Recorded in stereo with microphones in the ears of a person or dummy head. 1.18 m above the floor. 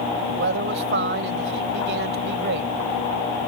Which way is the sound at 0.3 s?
70° right (ahead or behind).